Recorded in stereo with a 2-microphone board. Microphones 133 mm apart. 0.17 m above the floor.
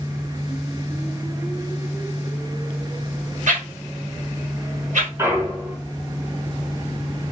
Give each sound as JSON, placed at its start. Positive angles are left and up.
{"t": 3.5, "sound": "a whoosh", "side_deg": -65, "distance_m": 1.3}
{"t": 5.2, "sound": "a clunk", "side_deg": -20, "distance_m": 1.4}